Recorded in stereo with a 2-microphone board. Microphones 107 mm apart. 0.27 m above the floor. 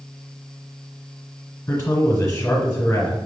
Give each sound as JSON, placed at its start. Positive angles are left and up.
{"t": 1.7, "sound": "a man speaking", "side_deg": 25, "distance_m": 1.5}